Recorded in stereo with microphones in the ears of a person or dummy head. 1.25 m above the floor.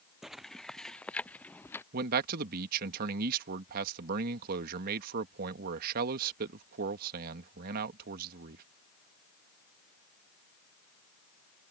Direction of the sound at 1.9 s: 50° right (ahead or behind).